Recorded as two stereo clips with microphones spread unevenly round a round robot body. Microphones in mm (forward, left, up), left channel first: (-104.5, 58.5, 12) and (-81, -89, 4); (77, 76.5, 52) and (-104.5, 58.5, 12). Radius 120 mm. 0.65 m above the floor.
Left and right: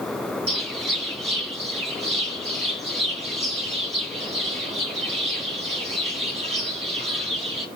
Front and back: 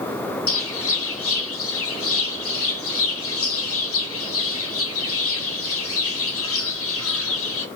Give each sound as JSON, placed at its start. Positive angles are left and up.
{"t": 0.5, "sound": "a bird", "azimuth_deg": -15, "distance_m": 1.1}